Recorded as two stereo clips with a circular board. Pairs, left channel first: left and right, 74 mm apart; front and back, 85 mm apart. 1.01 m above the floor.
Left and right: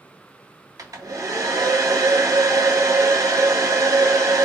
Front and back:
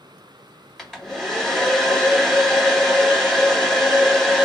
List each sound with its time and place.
0.8 s a hair dryer: 90° right, 1.1 m